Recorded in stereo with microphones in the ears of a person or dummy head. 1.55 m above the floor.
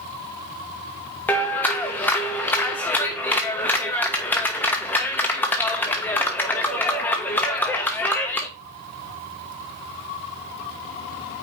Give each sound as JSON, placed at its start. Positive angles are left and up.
{"t": 1.3, "sound": "a clap", "side_deg": 5, "distance_m": 1.2}